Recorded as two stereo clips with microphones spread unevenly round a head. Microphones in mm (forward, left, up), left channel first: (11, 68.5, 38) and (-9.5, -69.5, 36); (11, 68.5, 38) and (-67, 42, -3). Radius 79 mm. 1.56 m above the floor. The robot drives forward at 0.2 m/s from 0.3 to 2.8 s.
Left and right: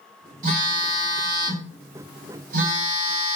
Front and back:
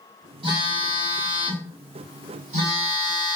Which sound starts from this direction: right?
A phone buzzing, at 0.4 s.